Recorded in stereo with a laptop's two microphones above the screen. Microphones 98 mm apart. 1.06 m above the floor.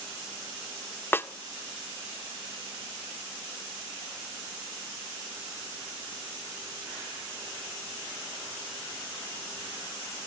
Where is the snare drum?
20° left (ahead or behind), 0.7 m.